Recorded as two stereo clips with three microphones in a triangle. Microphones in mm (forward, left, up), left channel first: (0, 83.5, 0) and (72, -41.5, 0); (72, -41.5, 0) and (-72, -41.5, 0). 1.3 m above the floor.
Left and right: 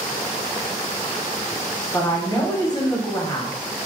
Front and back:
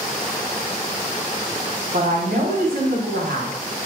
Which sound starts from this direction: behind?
A woman speaking, at 1.9 s.